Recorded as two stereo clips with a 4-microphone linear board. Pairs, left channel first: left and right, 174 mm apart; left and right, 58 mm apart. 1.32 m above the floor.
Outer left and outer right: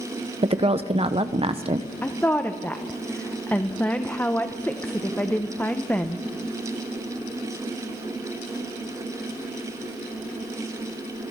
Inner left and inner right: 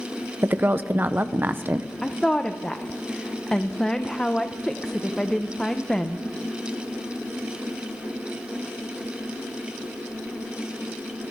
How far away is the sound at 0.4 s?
About 0.6 m.